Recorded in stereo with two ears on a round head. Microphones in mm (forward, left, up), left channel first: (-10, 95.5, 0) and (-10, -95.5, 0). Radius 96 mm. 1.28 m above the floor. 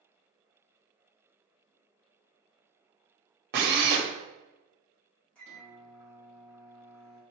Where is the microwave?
5° left (ahead or behind), 1.8 m.